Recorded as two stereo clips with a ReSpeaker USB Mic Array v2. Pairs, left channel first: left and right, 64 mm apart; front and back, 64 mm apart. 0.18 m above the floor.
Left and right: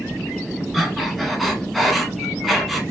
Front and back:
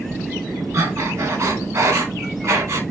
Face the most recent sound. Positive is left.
turn(degrees=180)